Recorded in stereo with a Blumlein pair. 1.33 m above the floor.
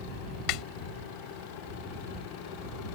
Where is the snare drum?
40° left.